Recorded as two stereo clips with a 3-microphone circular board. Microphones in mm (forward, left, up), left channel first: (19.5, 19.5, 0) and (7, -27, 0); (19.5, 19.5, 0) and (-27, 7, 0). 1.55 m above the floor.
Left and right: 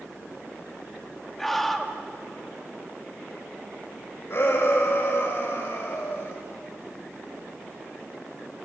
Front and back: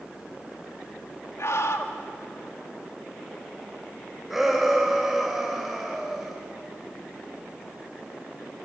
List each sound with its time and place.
1.4 s a scream: 10° right, 2.5 m
4.3 s a shout: 110° left, 5.5 m